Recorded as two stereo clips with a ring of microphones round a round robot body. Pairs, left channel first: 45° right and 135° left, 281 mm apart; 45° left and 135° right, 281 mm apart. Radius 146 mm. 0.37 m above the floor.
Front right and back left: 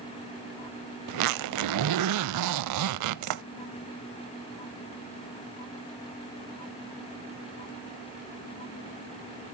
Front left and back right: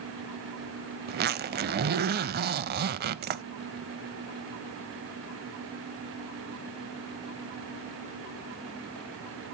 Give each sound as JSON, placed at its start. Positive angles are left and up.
{"t": 1.1, "sound": "a zipper", "azimuth_deg": 165, "distance_m": 0.5}